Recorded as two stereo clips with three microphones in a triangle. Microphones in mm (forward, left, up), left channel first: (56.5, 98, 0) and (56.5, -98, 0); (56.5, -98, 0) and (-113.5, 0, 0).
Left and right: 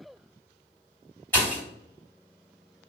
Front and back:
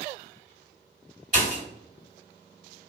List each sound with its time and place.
1.3 s a pop: 165° left, 2.0 m